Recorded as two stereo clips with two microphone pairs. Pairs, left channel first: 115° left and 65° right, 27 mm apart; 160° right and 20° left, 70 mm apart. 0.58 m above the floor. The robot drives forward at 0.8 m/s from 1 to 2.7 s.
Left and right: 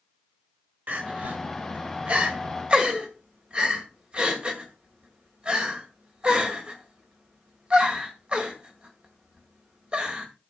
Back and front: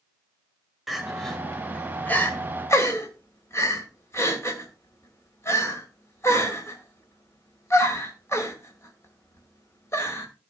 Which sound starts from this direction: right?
Crying, at 0.9 s.